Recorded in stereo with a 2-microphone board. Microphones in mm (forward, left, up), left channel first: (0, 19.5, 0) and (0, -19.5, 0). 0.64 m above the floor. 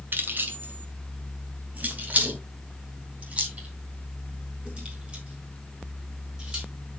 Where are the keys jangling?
60° right (ahead or behind), 2 m; by 6.7 s 25° right (ahead or behind), 5.5 m.